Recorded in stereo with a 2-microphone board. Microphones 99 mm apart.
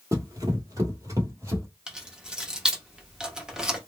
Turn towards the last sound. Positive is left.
turn(degrees=-5)  # may be behind; listen again after turning